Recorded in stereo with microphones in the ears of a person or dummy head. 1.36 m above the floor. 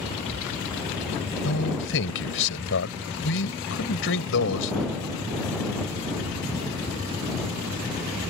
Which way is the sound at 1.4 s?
60° left (ahead or behind).